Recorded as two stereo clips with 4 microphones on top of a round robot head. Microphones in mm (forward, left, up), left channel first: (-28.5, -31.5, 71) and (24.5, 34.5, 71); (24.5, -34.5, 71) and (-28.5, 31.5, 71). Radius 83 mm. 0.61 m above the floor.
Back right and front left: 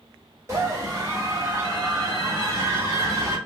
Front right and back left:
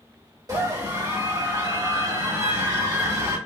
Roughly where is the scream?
Left.